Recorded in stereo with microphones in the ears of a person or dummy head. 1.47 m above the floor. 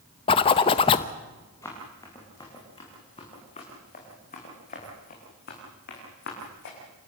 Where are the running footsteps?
15° left (ahead or behind), 6 m; by 6.8 s 60° left (ahead or behind), 6 m.